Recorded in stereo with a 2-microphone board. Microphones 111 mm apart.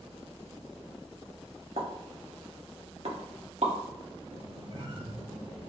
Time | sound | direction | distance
1.8 | a pop | 75° right (ahead or behind) | 1.0 m
4.3 | a squeak | 60° right (ahead or behind) | 1.7 m